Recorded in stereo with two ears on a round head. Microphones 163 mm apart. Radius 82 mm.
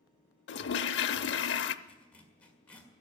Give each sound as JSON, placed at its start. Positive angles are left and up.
{"t": 0.5, "sound": "a toilet flushing", "side_deg": 65, "distance_m": 0.6}
{"t": 1.9, "sound": "a zipper", "side_deg": 10, "distance_m": 1.8}